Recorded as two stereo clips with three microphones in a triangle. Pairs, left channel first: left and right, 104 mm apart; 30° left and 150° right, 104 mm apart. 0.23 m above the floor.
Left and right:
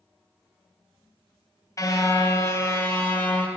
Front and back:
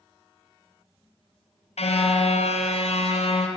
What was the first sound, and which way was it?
A car horn, 30° left.